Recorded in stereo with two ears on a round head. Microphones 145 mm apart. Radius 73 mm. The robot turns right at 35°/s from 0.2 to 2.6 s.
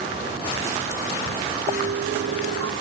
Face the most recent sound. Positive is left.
turn(degrees=-90)